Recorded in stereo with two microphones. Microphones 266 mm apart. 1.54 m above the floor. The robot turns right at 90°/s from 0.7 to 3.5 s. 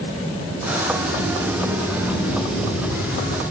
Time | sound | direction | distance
0.9 | a sliding door | 75° right | 7 m